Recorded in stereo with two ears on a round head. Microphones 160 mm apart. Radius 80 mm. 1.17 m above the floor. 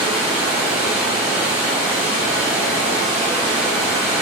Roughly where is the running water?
Left.